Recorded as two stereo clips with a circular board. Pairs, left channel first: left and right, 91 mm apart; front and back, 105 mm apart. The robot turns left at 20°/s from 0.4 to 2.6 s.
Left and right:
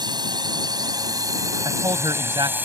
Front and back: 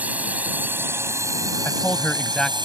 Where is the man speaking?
65° right; by 2.6 s 85° right.